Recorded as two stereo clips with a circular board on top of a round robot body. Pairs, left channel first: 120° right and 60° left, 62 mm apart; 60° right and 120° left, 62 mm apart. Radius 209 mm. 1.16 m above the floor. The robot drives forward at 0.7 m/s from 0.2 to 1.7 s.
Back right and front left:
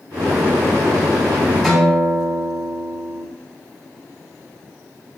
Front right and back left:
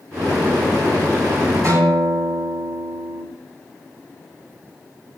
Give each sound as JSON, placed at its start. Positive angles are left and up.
{"t": 1.6, "sound": "a guitar", "azimuth_deg": 160, "distance_m": 6.0}